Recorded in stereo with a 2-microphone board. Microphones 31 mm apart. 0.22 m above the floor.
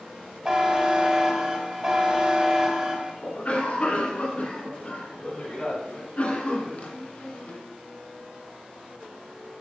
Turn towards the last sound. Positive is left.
turn(degrees=45)  # may be behind; listen again after turning